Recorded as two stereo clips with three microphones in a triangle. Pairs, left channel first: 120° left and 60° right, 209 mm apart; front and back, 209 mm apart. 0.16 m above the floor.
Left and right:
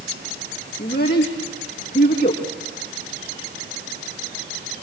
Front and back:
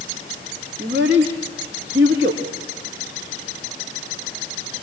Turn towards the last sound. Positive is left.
turn(degrees=160)